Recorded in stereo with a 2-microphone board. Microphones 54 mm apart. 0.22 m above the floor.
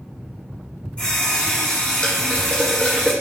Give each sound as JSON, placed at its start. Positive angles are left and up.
{"t": 1.0, "sound": "a running tap", "side_deg": 20, "distance_m": 1.5}